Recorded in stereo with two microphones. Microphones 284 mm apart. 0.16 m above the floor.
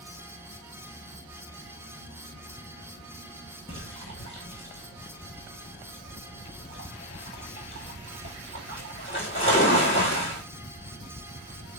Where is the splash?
45° left (ahead or behind), 1.4 m.